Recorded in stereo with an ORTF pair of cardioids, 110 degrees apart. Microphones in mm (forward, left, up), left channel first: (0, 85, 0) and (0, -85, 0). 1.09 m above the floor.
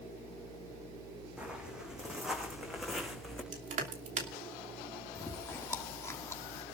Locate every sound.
1.4 s footsteps: 5° right, 4 m; by 3.4 s straight ahead, 5 m
3.5 s crushing: 50° right, 3 m
5.2 s chewing: 15° left, 1.3 m